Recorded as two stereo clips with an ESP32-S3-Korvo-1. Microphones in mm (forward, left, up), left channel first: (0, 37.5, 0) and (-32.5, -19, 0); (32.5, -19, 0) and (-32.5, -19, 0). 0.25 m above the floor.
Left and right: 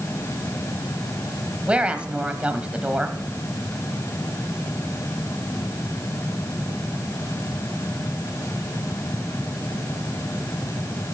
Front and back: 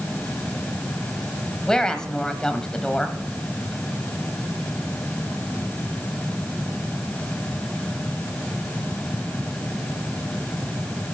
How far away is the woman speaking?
About 1.2 m.